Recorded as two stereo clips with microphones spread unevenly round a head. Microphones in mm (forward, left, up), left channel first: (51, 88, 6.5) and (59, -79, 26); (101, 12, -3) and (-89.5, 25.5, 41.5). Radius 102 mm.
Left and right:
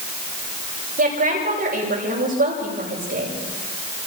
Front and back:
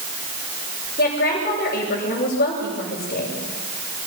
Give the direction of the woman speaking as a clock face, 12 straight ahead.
2 o'clock.